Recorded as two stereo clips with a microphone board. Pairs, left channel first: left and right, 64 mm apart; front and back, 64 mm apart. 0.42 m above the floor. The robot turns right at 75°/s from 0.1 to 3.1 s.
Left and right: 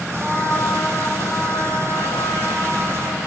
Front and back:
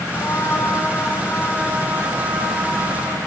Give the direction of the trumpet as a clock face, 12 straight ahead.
1 o'clock.